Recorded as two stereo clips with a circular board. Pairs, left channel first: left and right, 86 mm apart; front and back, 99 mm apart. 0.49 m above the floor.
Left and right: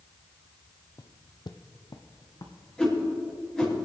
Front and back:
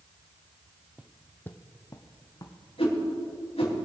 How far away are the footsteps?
About 0.6 m.